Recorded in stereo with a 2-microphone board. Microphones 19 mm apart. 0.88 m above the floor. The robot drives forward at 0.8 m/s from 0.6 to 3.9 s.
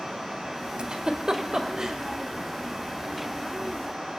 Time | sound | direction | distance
0.8 | a giggle | 60° right (ahead or behind) | 1.4 m